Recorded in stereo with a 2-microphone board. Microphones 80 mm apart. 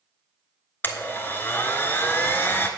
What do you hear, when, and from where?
0.8 s a blender: 25° left (ahead or behind), 0.9 m